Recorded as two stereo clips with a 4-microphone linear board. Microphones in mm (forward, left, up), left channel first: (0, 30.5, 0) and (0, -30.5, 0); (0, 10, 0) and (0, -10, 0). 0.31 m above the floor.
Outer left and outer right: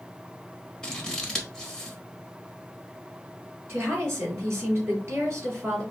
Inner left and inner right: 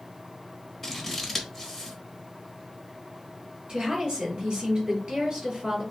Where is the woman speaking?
50° right (ahead or behind), 3 m.